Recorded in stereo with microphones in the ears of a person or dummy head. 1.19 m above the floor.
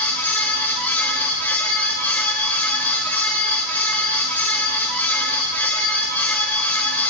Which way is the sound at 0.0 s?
10° left (ahead or behind).